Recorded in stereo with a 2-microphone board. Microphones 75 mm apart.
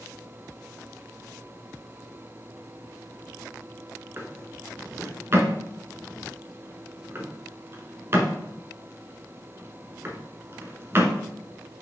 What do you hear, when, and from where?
4.2 s a drawer: 35° right (ahead or behind), 1.4 m